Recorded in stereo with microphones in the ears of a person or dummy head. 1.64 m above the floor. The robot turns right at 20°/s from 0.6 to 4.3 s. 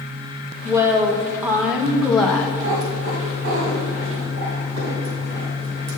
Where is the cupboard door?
No cupboard door in this recording.